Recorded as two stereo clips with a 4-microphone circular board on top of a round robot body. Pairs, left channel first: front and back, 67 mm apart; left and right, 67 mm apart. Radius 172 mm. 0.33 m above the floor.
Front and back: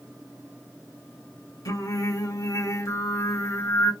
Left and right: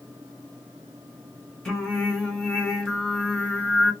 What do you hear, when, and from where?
1.6 s singing: 10° left, 2 m